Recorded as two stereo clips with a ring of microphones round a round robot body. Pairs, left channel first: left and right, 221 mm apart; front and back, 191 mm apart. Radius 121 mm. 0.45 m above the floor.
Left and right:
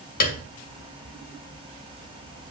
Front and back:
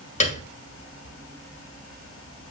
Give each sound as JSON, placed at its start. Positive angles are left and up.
{"t": 0.2, "sound": "a piano", "azimuth_deg": 45, "distance_m": 2.0}